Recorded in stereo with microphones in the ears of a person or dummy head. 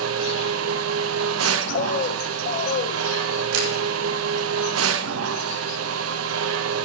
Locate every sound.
0.0 s a machine running: 80° right, 1.0 m
1.7 s a bird: 50° left (ahead or behind), 0.9 m
3.5 s a camera shutter: 75° right (ahead or behind), 3 m